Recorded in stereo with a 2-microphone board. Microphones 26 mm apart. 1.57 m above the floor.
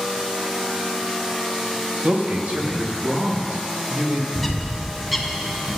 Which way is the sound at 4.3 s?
Centre (ahead or behind).